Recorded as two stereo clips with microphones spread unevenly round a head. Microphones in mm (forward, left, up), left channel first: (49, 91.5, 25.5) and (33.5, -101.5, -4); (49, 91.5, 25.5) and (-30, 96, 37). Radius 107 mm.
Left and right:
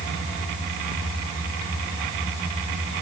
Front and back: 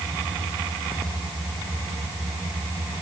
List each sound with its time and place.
Only background noise.